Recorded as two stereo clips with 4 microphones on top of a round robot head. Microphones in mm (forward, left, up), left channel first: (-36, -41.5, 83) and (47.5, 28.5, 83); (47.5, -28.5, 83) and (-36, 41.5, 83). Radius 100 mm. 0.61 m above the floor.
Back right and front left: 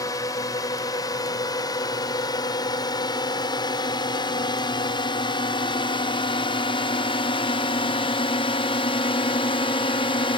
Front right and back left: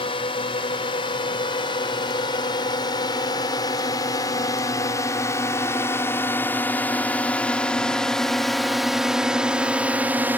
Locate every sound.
0.0 s a drone: 80° right; by 10.4 s 150° right